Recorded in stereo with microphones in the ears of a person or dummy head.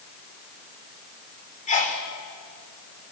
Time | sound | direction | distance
1.7 | a sneeze | 40° left (ahead or behind) | 4 m